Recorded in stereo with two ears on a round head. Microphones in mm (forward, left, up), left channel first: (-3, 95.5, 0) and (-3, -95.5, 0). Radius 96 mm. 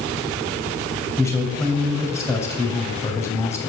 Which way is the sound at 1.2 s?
15° left (ahead or behind).